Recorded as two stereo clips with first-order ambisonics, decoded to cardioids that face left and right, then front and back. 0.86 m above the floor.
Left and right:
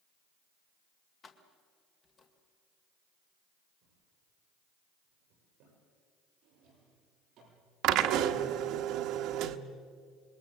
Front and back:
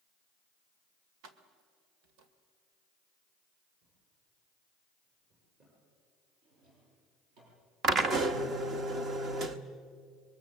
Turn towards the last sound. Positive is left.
turn(degrees=-125)